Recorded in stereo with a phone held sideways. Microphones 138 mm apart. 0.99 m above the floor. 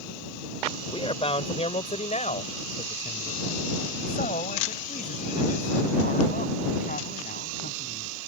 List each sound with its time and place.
0.9 s a man speaking: 40° left (ahead or behind); by 8.1 s 80° left